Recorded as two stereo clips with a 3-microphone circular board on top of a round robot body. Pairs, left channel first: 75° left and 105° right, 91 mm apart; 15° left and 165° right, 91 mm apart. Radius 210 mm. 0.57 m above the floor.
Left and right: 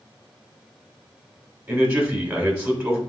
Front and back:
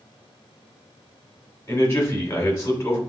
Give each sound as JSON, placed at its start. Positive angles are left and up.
{"t": 1.7, "sound": "a man speaking", "azimuth_deg": -45, "distance_m": 2.0}